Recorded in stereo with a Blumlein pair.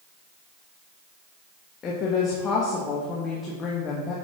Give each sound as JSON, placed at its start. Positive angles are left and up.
{"t": 1.8, "sound": "a woman speaking", "azimuth_deg": 25, "distance_m": 1.3}